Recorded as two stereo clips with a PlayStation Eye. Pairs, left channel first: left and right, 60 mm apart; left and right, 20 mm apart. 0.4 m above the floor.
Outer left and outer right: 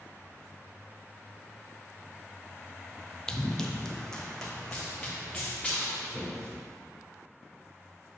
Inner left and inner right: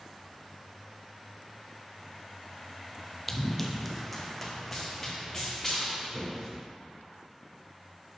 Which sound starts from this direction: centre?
Running footsteps, at 3.3 s.